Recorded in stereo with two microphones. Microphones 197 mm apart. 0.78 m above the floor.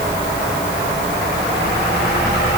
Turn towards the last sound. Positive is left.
No sound to turn to.